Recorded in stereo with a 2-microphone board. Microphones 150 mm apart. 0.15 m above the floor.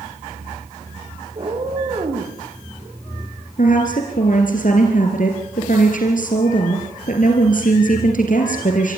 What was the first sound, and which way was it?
A cat meowing, 35° right (ahead or behind).